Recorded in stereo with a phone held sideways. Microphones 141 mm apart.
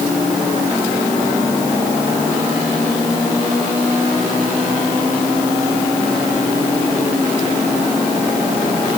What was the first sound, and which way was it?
Only background noise.